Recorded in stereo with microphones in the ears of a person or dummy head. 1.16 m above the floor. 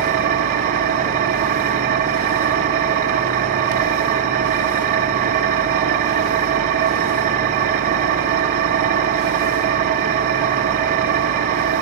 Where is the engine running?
45° right (ahead or behind), 2 m.